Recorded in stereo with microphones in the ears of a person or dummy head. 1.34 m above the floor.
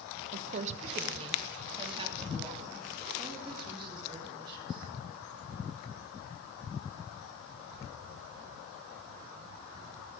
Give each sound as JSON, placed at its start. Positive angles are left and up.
{"t": 0.3, "sound": "a woman speaking", "side_deg": -45, "distance_m": 0.8}